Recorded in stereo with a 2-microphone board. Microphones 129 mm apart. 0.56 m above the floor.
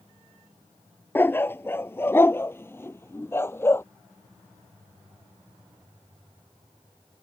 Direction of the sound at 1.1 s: 15° left (ahead or behind).